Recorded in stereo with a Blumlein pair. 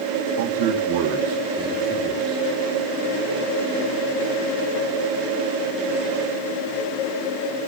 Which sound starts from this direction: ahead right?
A man speaking, at 0.4 s.